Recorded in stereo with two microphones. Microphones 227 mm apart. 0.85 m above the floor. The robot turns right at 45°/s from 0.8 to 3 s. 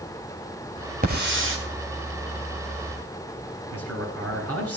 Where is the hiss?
40° right (ahead or behind), 3 m; by 1.6 s 65° right (ahead or behind), 3 m.